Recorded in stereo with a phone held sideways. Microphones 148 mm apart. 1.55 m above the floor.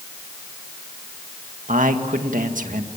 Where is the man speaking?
70° right (ahead or behind), 1.9 m.